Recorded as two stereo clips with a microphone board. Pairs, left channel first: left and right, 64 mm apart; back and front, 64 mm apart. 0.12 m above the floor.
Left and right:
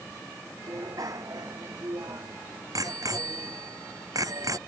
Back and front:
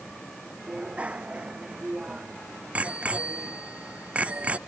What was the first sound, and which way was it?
A bicycle bell, 70° right.